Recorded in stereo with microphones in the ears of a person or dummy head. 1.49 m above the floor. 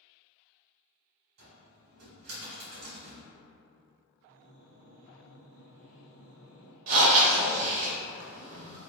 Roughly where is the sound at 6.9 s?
Right.